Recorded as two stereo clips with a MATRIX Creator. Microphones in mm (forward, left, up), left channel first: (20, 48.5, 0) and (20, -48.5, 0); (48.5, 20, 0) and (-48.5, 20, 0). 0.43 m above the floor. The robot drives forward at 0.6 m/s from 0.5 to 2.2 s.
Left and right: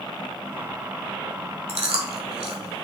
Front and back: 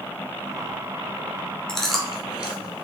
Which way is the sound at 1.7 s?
80° right.